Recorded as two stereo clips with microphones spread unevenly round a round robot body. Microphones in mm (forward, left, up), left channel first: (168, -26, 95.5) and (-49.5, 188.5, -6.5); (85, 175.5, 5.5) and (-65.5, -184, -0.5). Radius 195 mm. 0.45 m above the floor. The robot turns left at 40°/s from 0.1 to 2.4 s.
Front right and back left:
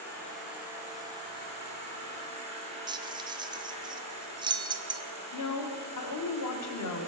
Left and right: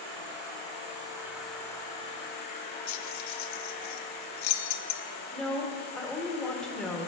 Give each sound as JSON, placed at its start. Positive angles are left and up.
{"t": 0.0, "sound": "an insect", "azimuth_deg": -150, "distance_m": 2.5}
{"t": 2.9, "sound": "keys jangling", "azimuth_deg": 90, "distance_m": 0.5}
{"t": 5.3, "sound": "a woman speaking", "azimuth_deg": -20, "distance_m": 1.2}